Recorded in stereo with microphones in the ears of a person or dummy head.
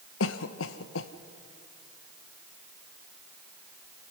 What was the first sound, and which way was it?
A cough, 70° left (ahead or behind).